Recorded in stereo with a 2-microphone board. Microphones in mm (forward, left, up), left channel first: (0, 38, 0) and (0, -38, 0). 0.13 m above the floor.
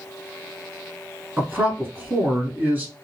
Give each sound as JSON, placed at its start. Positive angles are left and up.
{"t": 1.4, "sound": "a man speaking", "side_deg": -25, "distance_m": 1.3}